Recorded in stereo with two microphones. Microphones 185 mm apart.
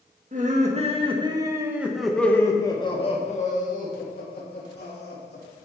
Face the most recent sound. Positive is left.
turn(degrees=65)  # may be behind; listen again after turning